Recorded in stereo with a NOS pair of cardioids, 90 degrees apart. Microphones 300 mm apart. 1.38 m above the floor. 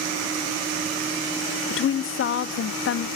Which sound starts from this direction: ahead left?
A woman speaking, at 1.7 s.